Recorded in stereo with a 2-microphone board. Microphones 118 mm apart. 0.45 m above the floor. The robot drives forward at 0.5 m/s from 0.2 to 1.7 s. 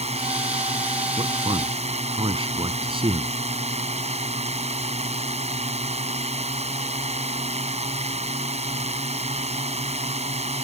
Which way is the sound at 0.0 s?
70° right (ahead or behind).